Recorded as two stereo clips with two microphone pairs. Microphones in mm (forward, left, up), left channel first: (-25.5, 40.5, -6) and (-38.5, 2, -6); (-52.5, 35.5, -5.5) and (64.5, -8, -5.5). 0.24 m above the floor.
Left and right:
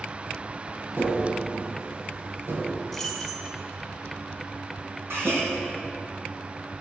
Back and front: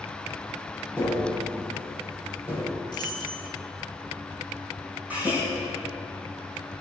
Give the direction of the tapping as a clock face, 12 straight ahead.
3 o'clock.